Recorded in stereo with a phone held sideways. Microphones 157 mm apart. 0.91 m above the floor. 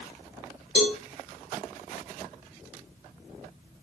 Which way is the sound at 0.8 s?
40° left (ahead or behind).